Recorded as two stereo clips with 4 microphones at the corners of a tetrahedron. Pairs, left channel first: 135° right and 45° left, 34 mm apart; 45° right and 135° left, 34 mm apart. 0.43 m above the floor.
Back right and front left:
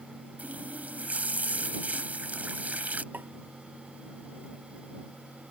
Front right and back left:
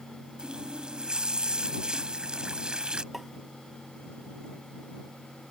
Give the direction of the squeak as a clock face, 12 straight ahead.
I don't hear a squeak.